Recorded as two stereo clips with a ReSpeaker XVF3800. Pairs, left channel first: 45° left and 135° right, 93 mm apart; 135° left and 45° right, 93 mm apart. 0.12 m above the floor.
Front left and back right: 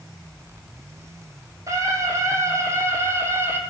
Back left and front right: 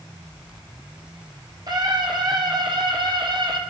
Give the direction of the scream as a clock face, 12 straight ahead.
3 o'clock.